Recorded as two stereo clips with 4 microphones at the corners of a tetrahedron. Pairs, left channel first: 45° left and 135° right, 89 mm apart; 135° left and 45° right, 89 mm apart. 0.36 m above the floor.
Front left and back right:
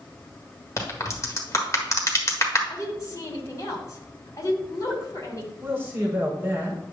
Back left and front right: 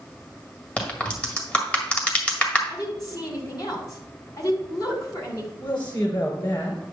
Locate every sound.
0.8 s a crack: 70° left, 1.7 m
2.7 s a woman speaking: 95° left, 2.5 m
5.6 s a man speaking: 160° left, 5 m